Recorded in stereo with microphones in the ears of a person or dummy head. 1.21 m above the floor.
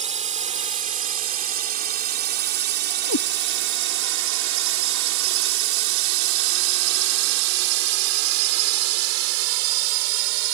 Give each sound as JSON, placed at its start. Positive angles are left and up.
{"t": 0.0, "sound": "a drone", "side_deg": -35}
{"t": 3.1, "sound": "a cat meowing", "side_deg": 85}